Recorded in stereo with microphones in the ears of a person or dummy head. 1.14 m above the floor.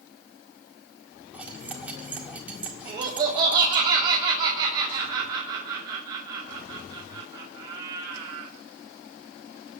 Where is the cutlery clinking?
5° right (ahead or behind), 1.8 m.